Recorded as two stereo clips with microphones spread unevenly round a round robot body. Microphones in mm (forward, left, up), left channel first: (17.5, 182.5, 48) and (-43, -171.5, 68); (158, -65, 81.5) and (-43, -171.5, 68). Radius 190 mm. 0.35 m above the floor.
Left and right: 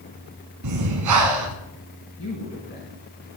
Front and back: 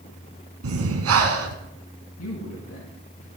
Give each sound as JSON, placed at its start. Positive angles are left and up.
{"t": 0.6, "sound": "breathing", "azimuth_deg": -140, "distance_m": 2.0}
{"t": 2.2, "sound": "a man speaking", "azimuth_deg": 20, "distance_m": 4.0}